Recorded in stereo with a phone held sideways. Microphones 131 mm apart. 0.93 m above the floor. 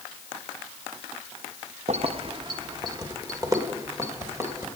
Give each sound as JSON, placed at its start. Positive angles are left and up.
{"t": 1.9, "sound": "keys jangling", "side_deg": -60, "distance_m": 0.6}